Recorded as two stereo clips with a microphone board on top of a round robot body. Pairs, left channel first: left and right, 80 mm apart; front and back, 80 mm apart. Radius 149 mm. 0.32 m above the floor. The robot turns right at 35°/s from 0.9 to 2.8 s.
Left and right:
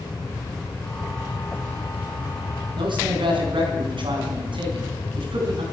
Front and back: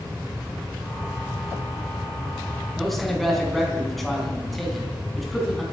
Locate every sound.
2.8 s a man speaking: 90° right, 4 m